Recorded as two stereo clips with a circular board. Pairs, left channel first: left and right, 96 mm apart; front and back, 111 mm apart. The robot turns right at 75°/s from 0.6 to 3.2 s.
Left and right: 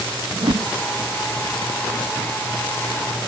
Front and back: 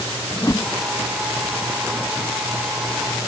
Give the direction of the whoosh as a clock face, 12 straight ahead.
2 o'clock.